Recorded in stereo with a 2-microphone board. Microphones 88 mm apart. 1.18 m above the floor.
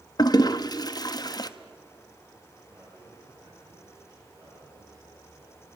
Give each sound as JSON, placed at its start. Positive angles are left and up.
{"t": 0.2, "sound": "a toilet flushing", "side_deg": 50, "distance_m": 0.8}
{"t": 2.7, "sound": "a man speaking", "side_deg": -40, "distance_m": 8.5}